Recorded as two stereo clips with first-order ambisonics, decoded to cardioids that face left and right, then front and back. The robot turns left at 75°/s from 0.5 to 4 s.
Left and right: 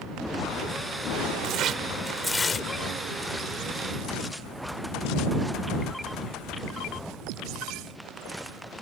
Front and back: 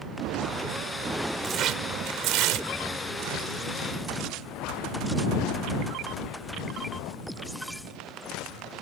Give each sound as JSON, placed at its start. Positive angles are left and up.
{"t": 1.4, "sound": "tearing paper", "azimuth_deg": -120}